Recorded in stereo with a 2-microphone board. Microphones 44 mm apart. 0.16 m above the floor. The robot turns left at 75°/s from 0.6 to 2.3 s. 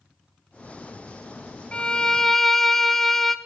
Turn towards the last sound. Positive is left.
turn(degrees=10)  # may be behind; listen again after turning